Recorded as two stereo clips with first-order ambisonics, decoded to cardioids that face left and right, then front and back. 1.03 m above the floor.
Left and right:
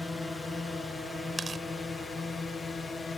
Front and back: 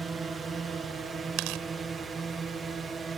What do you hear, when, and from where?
0.0 s a drone: 160° left; by 3.2 s 145° left
1.4 s tearing paper: 165° right